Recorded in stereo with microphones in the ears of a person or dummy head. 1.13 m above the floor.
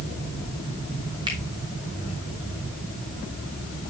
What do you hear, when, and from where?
1.3 s a finger snap: 25° right (ahead or behind), 2.0 m